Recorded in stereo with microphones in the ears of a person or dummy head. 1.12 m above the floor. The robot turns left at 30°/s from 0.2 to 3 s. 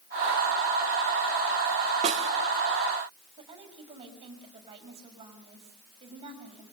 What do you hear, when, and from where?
2.0 s a snare drum: 30° right (ahead or behind), 1.5 m; by 2.3 s 25° right (ahead or behind), 1.5 m
3.4 s a woman speaking: 25° right (ahead or behind), 5.5 m